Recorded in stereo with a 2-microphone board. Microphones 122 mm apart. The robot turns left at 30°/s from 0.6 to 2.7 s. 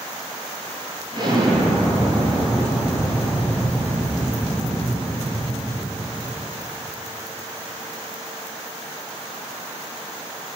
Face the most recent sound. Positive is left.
turn(degrees=180)